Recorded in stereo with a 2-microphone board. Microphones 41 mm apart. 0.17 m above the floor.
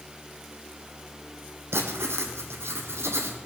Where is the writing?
70° right (ahead or behind), 1.9 m.